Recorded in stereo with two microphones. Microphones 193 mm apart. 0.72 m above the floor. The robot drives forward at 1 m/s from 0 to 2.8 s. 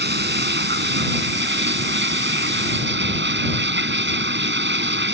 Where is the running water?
70° right (ahead or behind); by 5.1 s 85° right.